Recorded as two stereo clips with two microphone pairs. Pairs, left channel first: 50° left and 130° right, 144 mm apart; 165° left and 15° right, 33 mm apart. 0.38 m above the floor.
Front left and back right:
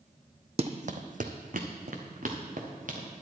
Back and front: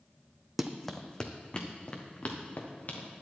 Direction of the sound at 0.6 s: 95° right.